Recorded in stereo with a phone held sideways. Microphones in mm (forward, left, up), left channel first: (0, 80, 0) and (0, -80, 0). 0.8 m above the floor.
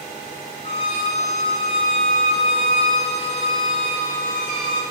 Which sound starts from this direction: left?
A violin, at 0.6 s.